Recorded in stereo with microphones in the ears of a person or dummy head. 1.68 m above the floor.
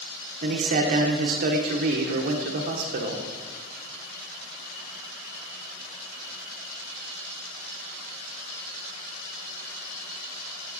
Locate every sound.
0.4 s a man speaking: 45° right (ahead or behind), 1.1 m